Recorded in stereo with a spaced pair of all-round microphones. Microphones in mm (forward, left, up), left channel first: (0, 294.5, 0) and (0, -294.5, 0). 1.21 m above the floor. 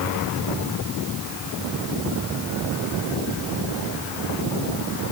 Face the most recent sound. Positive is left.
No sound to turn to.